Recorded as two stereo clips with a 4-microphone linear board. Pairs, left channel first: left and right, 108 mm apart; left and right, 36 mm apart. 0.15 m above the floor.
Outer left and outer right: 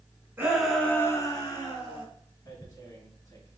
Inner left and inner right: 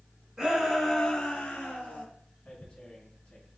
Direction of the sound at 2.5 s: 30° left (ahead or behind).